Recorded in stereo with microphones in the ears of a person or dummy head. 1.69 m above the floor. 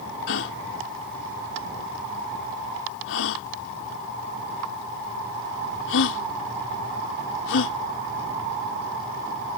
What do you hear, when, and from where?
0.3 s a gasp: 75° left (ahead or behind)